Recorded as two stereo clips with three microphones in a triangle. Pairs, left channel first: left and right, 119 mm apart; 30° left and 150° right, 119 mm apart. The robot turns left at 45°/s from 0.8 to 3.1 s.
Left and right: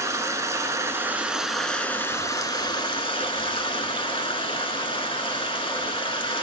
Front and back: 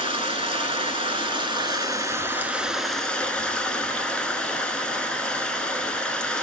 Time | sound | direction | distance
0.0 | running water | 145° right | 0.7 m